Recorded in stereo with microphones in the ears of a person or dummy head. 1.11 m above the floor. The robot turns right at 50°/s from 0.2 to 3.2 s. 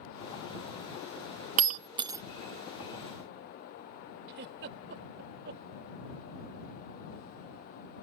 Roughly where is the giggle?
Right.